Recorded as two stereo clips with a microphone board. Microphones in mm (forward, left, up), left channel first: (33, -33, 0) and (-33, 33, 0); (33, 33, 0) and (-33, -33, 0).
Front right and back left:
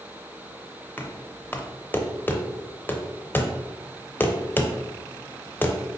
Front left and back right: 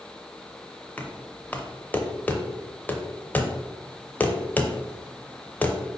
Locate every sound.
1.0 s knocking: 5° right, 0.6 m